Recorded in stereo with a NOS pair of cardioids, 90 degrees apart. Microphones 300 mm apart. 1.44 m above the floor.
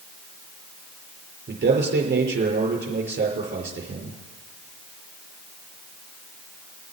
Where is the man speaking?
35° right, 5.5 m.